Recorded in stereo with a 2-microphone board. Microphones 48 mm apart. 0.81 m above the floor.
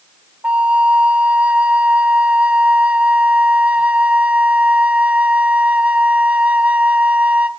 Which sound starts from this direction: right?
A flute, at 0.4 s.